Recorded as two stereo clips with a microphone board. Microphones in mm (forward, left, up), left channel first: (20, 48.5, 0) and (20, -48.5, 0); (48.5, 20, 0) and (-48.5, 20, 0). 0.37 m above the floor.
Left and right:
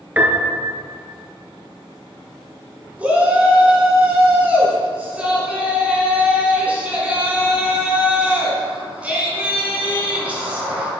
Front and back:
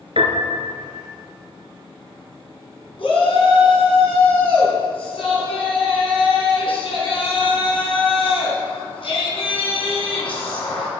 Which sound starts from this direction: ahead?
A shout, at 3.0 s.